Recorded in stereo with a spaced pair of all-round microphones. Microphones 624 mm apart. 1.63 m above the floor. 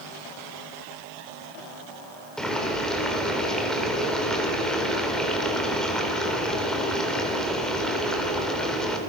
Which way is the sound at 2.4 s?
Centre (ahead or behind).